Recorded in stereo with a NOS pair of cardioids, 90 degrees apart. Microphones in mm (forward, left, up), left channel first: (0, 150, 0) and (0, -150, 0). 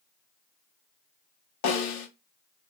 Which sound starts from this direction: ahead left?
A snare drum, at 1.6 s.